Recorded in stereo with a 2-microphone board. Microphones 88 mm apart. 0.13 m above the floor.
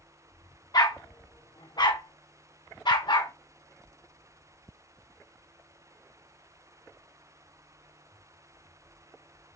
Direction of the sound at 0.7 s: 50° left (ahead or behind).